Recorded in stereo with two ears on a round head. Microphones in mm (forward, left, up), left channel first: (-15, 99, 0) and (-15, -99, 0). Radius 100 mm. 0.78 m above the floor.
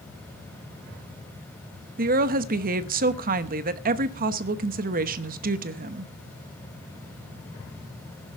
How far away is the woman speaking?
About 0.9 m.